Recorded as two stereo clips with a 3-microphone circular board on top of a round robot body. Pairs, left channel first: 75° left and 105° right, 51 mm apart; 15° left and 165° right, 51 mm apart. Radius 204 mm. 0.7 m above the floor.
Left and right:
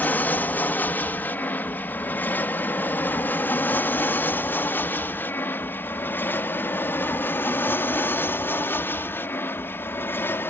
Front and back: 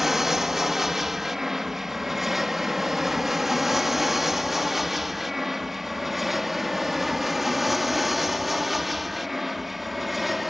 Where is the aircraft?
115° left; by 10.5 s 110° left.